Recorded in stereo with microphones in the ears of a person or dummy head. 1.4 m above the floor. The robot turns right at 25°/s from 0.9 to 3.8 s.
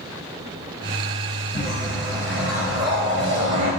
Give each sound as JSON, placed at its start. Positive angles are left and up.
{"t": 1.5, "sound": "a whoosh", "side_deg": -5, "distance_m": 1.2}